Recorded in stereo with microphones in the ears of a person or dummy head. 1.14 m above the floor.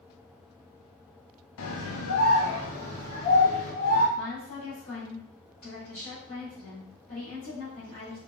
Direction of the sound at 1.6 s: 80° left.